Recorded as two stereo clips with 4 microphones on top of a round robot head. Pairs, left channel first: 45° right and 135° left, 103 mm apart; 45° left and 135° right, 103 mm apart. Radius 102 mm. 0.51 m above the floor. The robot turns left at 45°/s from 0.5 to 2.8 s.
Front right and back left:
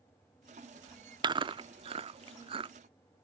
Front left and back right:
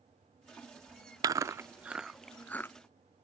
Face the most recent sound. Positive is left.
turn(degrees=105)